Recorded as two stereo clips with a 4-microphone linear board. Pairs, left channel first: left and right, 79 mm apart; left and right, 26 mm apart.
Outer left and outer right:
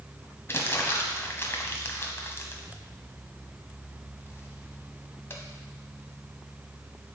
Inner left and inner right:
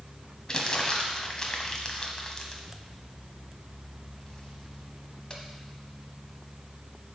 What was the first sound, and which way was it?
Crumpling, 30° left (ahead or behind).